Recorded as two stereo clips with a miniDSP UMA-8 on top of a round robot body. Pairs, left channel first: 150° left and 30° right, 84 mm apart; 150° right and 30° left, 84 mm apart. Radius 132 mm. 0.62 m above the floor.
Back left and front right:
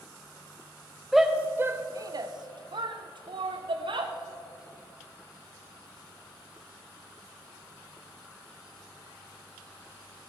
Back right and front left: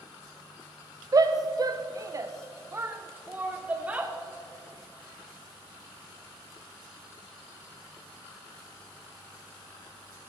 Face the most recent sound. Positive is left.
turn(degrees=-45)